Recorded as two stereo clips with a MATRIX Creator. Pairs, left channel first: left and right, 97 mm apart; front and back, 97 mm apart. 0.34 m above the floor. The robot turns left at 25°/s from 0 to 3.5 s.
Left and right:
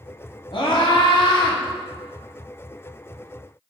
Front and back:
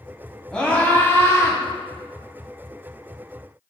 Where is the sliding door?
I don't hear a sliding door.